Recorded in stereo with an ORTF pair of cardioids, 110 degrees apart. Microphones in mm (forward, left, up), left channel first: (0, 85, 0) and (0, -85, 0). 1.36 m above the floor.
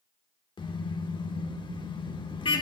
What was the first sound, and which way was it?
A car horn, 30° left.